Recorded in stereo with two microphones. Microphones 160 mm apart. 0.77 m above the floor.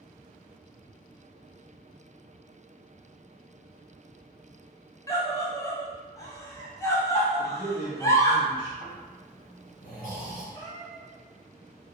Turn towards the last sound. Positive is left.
turn(degrees=25)  # may be behind; listen again after turning